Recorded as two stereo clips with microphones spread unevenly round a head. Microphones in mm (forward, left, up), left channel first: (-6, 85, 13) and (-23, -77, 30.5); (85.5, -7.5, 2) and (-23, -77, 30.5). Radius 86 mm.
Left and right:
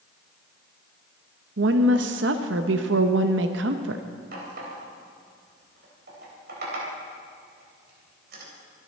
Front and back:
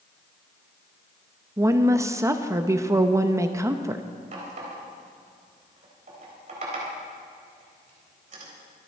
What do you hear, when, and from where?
1.6 s a woman speaking: 80° right, 0.8 m
4.3 s a running tap: 120° right, 4 m